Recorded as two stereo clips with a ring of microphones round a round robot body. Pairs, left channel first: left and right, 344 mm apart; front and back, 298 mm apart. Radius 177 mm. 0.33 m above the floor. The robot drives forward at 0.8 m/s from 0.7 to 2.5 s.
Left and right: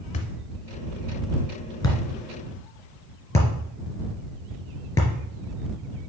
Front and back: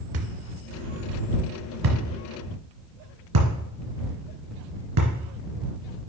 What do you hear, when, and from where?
0.1 s a thud: 160° left, 1.0 m; by 5.1 s 170° left, 2.5 m